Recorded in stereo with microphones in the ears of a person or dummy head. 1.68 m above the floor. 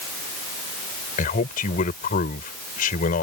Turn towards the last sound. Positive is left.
turn(degrees=40)  # may be behind; listen again after turning